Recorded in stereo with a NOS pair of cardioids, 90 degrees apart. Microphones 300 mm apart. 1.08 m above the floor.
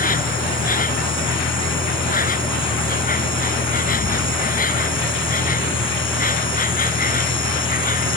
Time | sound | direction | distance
0.0 | an insect | 30° left | ?